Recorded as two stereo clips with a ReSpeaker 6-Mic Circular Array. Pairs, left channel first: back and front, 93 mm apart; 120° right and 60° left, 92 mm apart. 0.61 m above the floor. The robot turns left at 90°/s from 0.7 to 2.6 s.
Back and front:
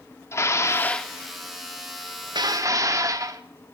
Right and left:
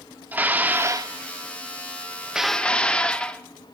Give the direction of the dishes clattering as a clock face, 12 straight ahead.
8 o'clock.